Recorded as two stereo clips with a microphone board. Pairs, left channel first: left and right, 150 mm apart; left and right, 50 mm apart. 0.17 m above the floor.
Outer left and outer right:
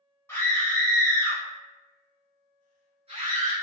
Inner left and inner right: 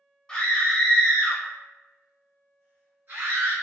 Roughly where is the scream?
Centre.